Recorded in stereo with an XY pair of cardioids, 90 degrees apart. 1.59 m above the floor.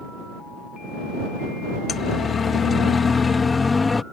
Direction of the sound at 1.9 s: 60° left.